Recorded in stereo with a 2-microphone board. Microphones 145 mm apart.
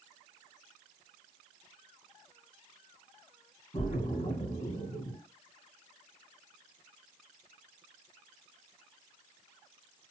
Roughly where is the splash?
Left.